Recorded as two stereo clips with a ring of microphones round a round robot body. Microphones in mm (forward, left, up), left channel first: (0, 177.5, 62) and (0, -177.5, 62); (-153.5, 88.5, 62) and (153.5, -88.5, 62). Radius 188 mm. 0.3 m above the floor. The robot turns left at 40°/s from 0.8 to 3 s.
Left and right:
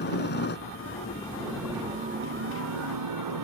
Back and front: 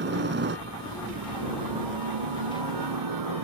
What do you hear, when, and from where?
0.0 s a helicopter: 30° left; by 3.4 s 60° right